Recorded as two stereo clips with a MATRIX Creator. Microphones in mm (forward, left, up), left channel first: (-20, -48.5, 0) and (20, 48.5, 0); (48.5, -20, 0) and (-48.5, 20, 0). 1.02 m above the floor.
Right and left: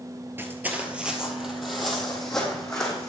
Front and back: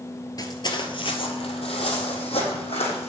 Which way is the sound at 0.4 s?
10° left.